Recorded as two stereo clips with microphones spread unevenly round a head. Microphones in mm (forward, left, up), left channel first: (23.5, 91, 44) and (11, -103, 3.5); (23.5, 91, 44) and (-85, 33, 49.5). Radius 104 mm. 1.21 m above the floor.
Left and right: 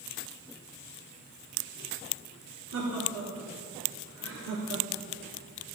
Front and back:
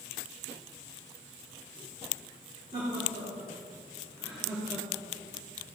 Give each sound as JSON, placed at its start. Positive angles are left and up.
{"t": 2.7, "sound": "laughter", "azimuth_deg": -100, "distance_m": 2.5}